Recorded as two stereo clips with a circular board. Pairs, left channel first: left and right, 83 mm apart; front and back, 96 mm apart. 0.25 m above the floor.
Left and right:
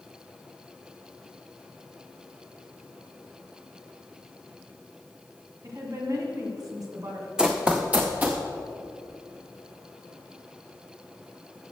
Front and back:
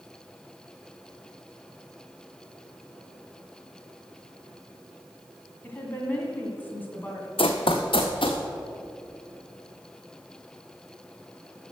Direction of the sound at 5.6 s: 65° right.